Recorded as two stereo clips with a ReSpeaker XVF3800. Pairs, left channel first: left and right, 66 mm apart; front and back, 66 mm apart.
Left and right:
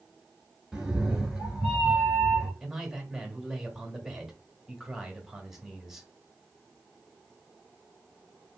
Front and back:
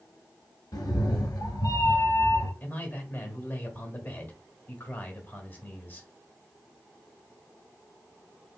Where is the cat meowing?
10° right, 0.9 m.